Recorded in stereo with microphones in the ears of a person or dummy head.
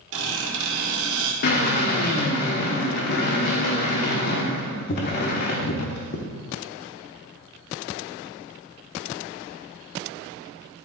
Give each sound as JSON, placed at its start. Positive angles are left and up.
{"t": 0.1, "sound": "a squeak", "side_deg": -70, "distance_m": 1.7}
{"t": 1.4, "sound": "a drill", "side_deg": 55, "distance_m": 1.1}